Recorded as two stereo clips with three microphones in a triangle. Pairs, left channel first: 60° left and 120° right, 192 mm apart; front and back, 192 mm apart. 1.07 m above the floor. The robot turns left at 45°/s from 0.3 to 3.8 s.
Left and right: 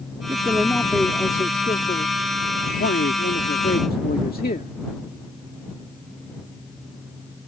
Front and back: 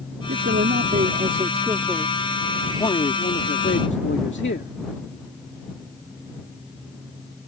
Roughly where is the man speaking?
Behind.